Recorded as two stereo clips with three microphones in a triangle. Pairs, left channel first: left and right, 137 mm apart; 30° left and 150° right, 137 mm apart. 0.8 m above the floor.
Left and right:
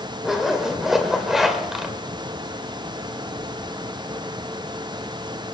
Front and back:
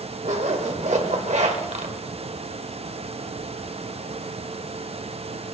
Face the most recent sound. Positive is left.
turn(degrees=180)